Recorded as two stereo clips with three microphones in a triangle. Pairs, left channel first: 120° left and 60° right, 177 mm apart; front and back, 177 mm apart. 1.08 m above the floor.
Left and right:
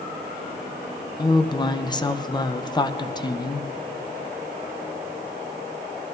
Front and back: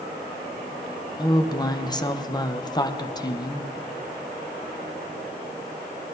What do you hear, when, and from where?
1.2 s a woman speaking: 60° left, 0.7 m